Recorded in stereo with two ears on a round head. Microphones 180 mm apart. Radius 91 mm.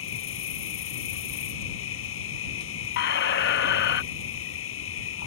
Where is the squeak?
55° left (ahead or behind).